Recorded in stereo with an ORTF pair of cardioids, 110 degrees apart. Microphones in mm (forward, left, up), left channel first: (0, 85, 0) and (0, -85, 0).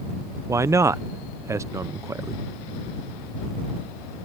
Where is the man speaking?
20° right.